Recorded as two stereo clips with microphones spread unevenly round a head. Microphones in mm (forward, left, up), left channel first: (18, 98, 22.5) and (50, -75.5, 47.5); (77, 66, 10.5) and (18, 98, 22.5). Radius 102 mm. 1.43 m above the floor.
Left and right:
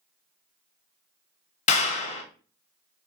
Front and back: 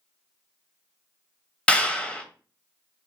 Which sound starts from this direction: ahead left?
A clap, at 1.7 s.